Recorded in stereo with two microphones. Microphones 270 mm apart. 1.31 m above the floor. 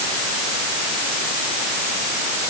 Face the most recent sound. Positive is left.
No sound to turn to.